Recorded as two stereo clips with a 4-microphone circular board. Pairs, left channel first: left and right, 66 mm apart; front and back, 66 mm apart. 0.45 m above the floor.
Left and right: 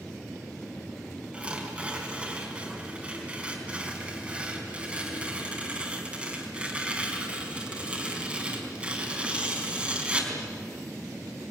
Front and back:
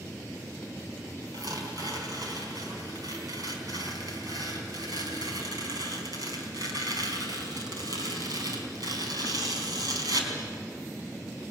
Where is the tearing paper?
165° right, 4.5 m.